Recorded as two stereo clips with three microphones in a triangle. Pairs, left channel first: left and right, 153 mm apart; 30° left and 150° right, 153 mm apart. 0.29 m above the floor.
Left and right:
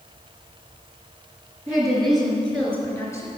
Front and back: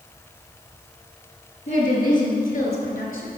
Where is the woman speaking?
5° right, 4.5 m; by 3.3 s 20° left, 3.5 m.